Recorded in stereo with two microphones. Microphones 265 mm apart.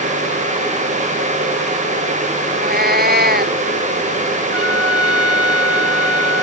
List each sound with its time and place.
2.5 s a cat meowing: 35° right (ahead or behind)
4.5 s a trumpet: 60° right (ahead or behind)